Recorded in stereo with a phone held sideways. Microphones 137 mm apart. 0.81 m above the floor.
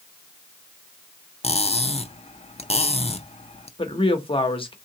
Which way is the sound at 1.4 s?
50° left (ahead or behind).